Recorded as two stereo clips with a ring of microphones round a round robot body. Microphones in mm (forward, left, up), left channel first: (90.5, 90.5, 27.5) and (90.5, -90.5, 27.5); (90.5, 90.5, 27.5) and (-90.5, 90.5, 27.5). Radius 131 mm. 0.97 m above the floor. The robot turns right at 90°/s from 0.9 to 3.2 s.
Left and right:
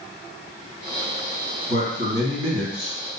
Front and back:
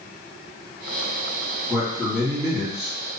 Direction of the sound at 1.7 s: 105° right.